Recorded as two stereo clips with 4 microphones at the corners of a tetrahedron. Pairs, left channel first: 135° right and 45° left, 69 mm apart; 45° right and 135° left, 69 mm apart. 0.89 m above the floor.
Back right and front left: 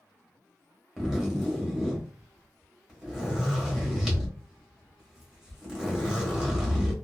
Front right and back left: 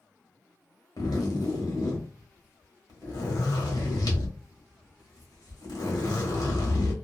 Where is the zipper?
35° right, 1.2 m.